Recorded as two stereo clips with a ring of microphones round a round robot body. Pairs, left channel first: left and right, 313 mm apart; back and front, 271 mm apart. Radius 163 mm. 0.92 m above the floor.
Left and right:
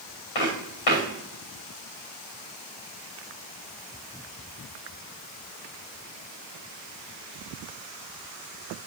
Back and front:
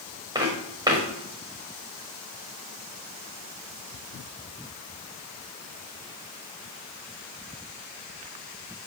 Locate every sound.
0.3 s footsteps: 75° left, 6.5 m